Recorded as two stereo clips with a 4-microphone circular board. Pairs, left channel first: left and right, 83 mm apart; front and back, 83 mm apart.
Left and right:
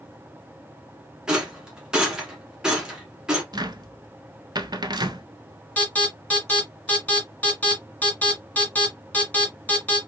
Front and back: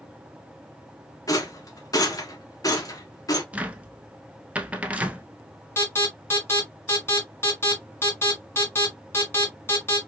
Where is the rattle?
15° right, 1.2 m.